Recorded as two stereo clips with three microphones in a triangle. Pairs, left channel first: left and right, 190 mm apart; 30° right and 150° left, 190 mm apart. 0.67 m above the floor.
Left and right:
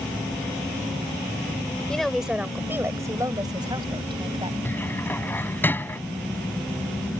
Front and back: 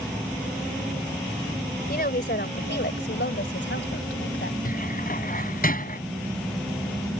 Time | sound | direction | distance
1.9 | a woman speaking | 5° left | ?
4.7 | a cupboard door | 10° left | ?